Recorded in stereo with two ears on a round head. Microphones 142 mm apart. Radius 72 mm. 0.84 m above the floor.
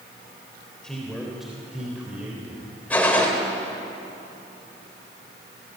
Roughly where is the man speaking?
Centre.